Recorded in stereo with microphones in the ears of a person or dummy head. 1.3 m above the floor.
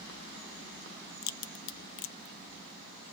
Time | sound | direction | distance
1.2 | a crack | 60° left (ahead or behind) | 0.6 m